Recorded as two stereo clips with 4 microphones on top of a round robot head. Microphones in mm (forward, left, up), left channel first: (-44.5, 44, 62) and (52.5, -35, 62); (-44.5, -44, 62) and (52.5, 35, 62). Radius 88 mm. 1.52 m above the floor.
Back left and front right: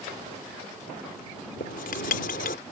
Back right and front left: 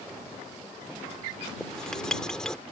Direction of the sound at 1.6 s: 135° left.